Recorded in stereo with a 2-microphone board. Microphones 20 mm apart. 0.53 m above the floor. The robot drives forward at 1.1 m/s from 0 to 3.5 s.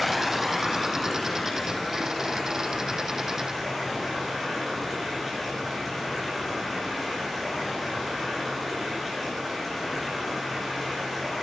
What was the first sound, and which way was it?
Running water, centre (ahead or behind).